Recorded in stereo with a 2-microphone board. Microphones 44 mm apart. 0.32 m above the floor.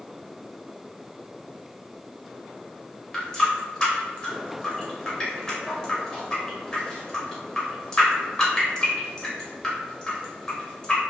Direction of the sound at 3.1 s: 15° left (ahead or behind).